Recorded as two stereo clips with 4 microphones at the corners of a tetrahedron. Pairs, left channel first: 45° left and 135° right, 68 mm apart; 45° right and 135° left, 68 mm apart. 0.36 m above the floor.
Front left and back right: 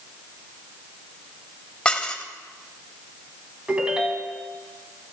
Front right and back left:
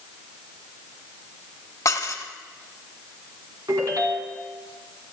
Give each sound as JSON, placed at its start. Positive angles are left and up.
{"t": 1.9, "sound": "dishes clattering", "azimuth_deg": -30, "distance_m": 1.1}
{"t": 3.7, "sound": "a ringtone", "azimuth_deg": 150, "distance_m": 2.0}